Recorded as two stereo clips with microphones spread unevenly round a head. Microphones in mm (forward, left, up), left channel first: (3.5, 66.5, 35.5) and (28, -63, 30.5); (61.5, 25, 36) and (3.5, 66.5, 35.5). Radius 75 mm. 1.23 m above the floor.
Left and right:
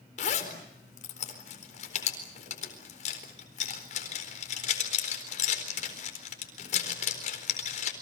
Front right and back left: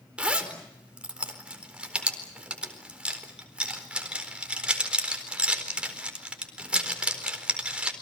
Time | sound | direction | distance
0.2 | a zipper | 70° left | 4 m